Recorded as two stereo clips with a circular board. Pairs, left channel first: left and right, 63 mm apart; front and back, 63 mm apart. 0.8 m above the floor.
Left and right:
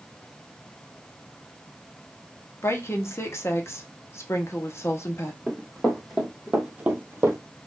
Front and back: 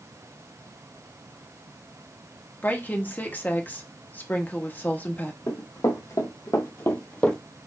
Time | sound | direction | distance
2.6 | a woman speaking | 55° left | 0.9 m
5.5 | running footsteps | 5° left | 2 m